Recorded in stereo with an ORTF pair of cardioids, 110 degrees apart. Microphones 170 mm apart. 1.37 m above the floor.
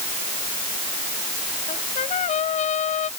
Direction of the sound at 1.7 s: 50° left.